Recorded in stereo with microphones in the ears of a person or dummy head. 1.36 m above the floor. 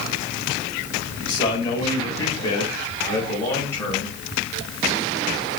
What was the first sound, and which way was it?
A man speaking, 25° left (ahead or behind).